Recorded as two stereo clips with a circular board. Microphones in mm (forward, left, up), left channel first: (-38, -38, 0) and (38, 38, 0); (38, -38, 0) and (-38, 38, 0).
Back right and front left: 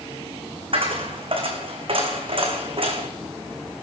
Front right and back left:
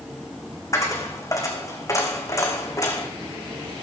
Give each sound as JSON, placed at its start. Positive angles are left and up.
{"t": 0.7, "sound": "a dropped coin", "azimuth_deg": 15, "distance_m": 2.5}